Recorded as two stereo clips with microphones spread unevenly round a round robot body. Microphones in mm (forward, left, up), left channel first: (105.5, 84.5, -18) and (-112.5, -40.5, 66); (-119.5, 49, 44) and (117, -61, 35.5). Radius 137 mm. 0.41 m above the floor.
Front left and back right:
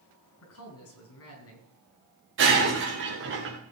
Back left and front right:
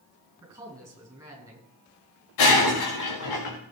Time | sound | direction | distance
0.4 | a man speaking | 55° left | 5.5 m
2.4 | breaking glass | 170° left | 4 m